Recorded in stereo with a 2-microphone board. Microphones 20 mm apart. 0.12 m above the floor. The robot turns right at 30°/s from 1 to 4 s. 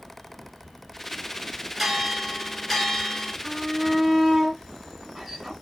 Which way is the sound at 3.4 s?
10° right (ahead or behind).